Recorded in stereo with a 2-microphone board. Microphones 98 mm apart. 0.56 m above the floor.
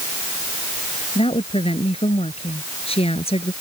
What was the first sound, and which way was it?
A woman speaking, 85° left.